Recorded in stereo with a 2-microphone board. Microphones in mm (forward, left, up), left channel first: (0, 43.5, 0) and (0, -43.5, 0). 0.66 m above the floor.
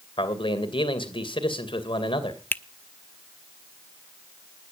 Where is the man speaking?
75° left (ahead or behind), 2.5 m.